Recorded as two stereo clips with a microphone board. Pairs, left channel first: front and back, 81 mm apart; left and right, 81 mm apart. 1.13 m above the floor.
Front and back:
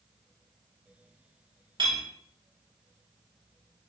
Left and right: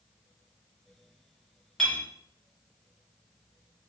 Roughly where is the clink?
Behind.